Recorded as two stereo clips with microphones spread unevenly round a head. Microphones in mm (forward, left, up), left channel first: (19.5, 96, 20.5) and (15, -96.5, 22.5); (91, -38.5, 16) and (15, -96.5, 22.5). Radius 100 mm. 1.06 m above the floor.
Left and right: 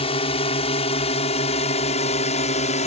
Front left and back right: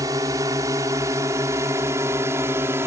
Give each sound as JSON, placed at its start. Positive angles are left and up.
{"t": 0.0, "sound": "a drone", "azimuth_deg": 150}